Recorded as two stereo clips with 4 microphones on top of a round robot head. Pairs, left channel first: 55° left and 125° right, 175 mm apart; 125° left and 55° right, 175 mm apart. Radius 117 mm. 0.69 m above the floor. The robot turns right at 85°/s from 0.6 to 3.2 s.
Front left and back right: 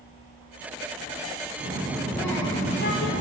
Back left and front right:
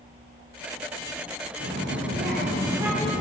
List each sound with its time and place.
1.6 s a child speaking: 80° right, 1.6 m; by 3.2 s 55° left, 1.6 m